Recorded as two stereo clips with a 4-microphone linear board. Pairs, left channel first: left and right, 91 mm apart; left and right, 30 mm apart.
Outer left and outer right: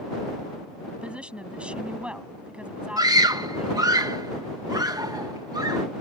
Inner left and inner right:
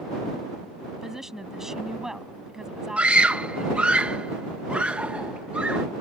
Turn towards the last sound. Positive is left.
turn(degrees=-45)  # may be behind; listen again after turning